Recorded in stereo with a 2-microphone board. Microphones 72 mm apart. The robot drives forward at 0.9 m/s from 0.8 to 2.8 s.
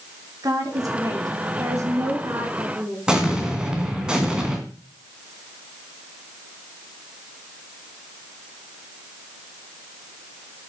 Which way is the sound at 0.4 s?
55° right (ahead or behind).